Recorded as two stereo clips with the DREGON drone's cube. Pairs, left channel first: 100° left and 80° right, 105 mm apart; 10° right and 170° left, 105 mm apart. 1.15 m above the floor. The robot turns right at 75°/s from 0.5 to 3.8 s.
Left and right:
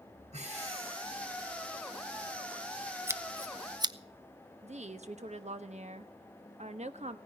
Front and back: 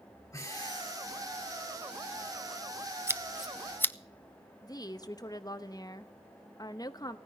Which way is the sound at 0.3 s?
70° right.